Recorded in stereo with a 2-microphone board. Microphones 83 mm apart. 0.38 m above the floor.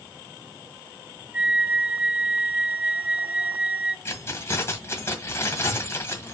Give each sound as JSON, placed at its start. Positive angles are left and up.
{"t": 1.3, "sound": "a flute", "side_deg": -15, "distance_m": 0.6}
{"t": 4.0, "sound": "keys jangling", "side_deg": 30, "distance_m": 1.5}